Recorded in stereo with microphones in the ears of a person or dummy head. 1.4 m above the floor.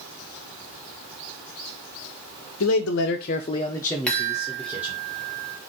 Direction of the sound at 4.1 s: 5° left (ahead or behind).